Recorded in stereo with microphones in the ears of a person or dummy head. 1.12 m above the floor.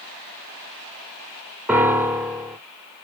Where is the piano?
5° right (ahead or behind), 0.5 m.